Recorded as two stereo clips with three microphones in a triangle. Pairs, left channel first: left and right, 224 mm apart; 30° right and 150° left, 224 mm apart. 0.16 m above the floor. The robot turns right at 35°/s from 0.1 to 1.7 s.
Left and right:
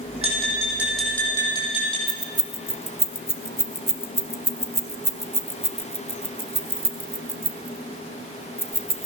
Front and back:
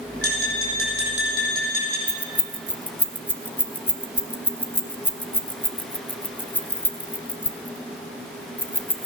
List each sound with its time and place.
0.2 s tapping: 30° right, 5 m; by 2.0 s 25° left, 5 m
2.1 s keys jangling: 35° left, 0.8 m